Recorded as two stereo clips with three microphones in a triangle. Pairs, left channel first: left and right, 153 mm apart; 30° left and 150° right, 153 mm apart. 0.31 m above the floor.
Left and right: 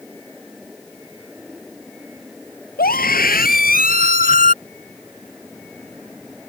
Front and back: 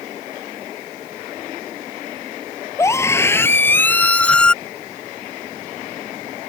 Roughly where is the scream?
Left.